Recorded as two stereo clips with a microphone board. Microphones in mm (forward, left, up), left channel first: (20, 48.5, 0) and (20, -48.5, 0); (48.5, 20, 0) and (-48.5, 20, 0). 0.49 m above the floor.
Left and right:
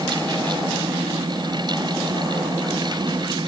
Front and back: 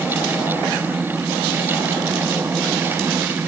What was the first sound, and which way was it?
Only background noise.